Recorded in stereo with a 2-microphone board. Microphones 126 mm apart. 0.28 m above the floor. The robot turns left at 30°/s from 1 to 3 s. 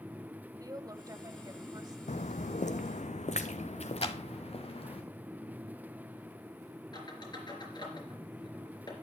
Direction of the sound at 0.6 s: 30° right (ahead or behind).